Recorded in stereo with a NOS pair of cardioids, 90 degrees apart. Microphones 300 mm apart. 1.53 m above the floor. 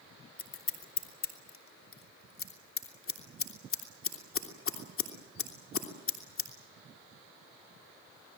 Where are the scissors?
45° left, 3 m.